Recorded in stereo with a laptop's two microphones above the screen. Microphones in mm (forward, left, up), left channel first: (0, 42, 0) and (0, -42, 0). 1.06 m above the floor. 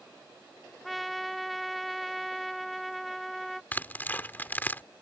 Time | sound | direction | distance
0.8 | a trumpet | centre (ahead or behind) | ?
3.7 | tearing paper | 25° left (ahead or behind) | ?